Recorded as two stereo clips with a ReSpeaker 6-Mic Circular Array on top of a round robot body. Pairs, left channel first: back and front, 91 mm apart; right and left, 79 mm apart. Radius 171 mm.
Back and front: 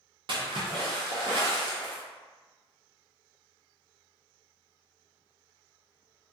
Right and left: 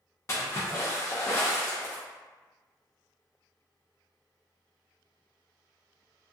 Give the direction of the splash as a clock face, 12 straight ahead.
1 o'clock.